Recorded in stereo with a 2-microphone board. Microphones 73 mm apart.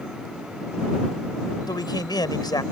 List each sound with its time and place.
1.7 s a man speaking: 75° left (ahead or behind)